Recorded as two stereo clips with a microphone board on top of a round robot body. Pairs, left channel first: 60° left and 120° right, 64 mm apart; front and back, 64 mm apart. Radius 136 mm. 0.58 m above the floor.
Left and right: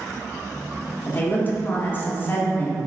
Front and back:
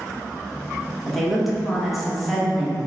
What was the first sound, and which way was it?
A woman speaking, 90° left.